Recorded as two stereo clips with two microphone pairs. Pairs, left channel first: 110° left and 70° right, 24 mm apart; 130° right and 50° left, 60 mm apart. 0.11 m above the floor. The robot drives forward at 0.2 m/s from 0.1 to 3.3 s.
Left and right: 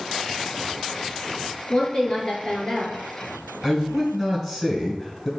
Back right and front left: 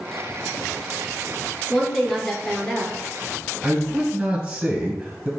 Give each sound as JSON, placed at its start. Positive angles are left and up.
{"t": 1.7, "sound": "a woman speaking", "azimuth_deg": 135, "distance_m": 1.3}
{"t": 3.6, "sound": "a man speaking", "azimuth_deg": 50, "distance_m": 1.4}